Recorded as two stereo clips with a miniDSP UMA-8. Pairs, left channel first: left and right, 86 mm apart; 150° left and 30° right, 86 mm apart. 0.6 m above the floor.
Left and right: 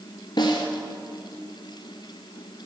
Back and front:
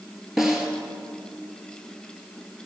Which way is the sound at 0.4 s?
55° left.